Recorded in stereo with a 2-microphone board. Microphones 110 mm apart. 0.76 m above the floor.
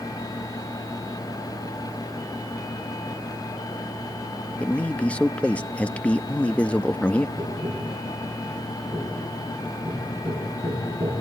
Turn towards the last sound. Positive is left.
turn(degrees=-35)  # may be behind; listen again after turning